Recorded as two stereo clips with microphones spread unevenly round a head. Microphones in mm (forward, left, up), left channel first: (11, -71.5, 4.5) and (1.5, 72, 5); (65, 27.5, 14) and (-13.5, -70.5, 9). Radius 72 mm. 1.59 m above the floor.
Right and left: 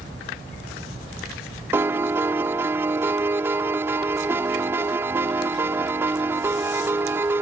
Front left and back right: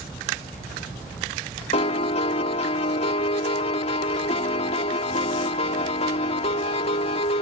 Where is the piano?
20° left.